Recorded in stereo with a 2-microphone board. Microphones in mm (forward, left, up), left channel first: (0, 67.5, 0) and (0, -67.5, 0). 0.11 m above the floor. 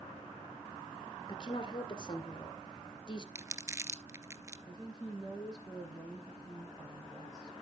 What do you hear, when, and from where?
1.3 s a woman speaking: 35° left (ahead or behind), 2 m
3.4 s crumpling: 20° right (ahead or behind), 0.6 m
4.7 s a woman speaking: 5° right (ahead or behind), 4.5 m